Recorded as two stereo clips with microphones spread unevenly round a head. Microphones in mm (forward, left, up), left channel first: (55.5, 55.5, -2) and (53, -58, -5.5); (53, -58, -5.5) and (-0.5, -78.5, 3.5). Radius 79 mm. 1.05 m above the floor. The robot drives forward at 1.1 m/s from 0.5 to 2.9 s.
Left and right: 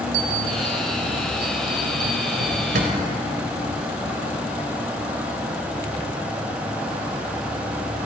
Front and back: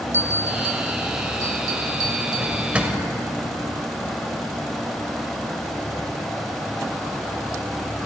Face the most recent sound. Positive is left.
turn(degrees=-95)